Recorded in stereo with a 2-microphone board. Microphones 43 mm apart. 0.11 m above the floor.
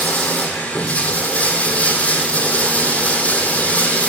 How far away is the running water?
About 1.6 m.